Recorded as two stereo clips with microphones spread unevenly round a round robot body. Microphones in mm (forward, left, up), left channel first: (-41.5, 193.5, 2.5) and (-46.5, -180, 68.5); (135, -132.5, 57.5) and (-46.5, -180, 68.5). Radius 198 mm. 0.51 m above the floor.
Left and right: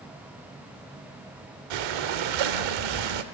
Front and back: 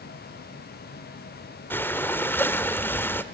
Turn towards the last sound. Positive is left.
turn(degrees=-65)